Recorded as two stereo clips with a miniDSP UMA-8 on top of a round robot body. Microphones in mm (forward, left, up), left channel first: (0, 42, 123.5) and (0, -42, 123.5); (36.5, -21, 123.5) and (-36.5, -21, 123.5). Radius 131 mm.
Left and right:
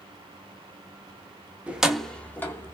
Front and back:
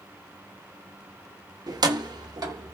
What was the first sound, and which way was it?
Keys jangling, 165° right.